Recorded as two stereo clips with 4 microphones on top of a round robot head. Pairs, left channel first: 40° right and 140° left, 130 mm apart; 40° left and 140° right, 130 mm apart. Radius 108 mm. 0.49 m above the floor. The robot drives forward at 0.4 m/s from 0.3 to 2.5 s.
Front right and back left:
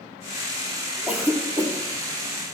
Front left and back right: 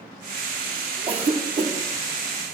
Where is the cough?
140° right, 0.8 m; by 1.7 s 155° right, 1.0 m.